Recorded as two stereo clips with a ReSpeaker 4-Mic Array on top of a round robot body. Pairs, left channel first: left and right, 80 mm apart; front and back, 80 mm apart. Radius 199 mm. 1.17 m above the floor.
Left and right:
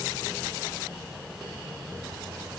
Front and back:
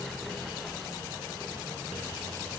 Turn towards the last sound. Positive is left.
No sound to turn to.